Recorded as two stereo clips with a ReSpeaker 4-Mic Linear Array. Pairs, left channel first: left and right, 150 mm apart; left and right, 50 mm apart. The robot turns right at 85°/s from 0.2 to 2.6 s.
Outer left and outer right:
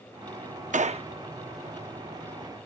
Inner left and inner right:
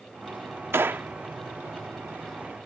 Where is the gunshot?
55° right (ahead or behind); by 1.1 s 35° right (ahead or behind).